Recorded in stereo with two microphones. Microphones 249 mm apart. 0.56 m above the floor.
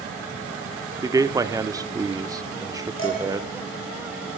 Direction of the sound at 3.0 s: 55° left (ahead or behind).